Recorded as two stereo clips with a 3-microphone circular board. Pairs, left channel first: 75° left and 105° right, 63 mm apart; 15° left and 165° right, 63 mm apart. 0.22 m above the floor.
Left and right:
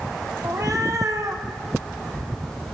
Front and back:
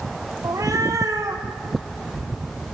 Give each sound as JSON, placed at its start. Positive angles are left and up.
{"t": 0.4, "sound": "a cat meowing", "azimuth_deg": -135, "distance_m": 2.5}